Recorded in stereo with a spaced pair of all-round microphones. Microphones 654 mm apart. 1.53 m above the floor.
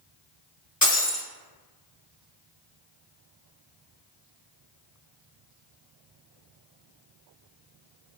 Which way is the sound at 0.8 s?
15° left (ahead or behind).